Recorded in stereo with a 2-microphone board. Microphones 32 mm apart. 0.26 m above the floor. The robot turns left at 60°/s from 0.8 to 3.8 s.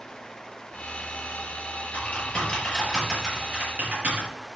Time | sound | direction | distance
1.9 | typing on a keyboard | 50° left (ahead or behind) | 5.5 m